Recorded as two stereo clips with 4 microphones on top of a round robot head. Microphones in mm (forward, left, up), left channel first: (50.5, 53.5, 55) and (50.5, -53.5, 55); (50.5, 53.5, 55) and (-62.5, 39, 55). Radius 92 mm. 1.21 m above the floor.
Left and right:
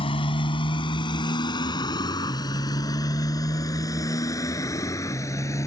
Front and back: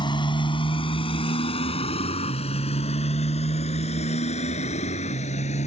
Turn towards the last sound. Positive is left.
turn(degrees=30)